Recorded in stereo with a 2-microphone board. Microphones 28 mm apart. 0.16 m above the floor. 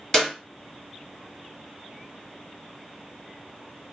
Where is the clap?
10° left (ahead or behind), 1.4 m.